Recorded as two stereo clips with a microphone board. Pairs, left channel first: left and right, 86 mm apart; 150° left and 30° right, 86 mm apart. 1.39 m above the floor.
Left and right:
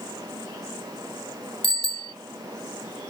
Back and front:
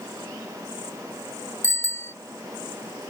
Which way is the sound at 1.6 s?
90° left.